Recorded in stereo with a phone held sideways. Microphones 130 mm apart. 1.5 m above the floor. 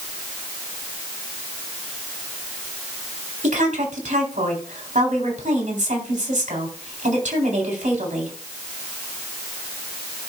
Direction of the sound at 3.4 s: 80° right.